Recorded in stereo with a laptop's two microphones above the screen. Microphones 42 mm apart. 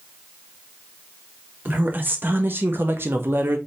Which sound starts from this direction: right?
A woman speaking, at 1.6 s.